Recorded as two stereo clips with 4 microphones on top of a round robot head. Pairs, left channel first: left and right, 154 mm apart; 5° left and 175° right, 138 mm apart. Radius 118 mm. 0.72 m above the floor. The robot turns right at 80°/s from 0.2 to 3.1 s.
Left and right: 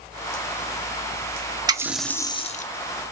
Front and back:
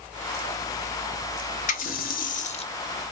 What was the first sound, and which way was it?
A running tap, 25° right.